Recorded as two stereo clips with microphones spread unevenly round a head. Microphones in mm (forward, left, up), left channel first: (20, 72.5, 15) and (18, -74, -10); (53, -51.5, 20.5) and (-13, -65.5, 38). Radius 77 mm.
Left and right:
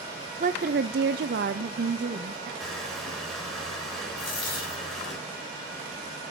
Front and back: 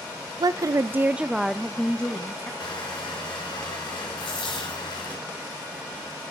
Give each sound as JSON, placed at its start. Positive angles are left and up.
{"t": 0.4, "sound": "a woman speaking", "azimuth_deg": -135, "distance_m": 0.6}
{"t": 2.6, "sound": "crushing", "azimuth_deg": 5, "distance_m": 5.5}
{"t": 4.2, "sound": "a dropped coin", "azimuth_deg": 35, "distance_m": 5.5}